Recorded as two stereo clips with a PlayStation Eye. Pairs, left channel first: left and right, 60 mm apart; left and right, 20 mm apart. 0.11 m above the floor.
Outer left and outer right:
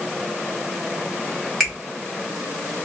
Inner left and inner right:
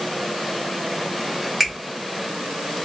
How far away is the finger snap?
About 1.5 m.